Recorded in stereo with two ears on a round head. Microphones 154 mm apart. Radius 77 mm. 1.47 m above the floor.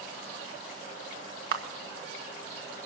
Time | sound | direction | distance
1.5 | a camera shutter | 65° right (ahead or behind) | 1.4 m